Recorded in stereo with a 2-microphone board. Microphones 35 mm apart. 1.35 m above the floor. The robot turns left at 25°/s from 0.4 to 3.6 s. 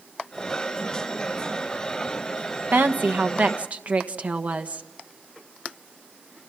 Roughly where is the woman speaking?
Right.